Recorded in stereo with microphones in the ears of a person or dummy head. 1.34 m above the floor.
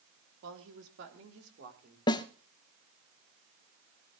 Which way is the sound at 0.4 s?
70° right (ahead or behind).